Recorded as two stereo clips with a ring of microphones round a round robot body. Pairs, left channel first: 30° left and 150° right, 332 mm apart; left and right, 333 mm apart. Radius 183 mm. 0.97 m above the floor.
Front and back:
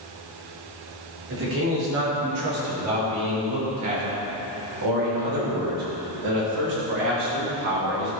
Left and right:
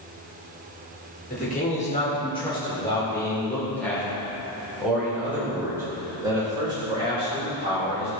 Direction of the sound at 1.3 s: 155° left.